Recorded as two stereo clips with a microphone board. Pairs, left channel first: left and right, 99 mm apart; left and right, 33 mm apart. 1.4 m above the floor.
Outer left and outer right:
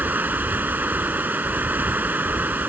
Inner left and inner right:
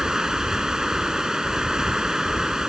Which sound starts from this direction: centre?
Running water, at 0.0 s.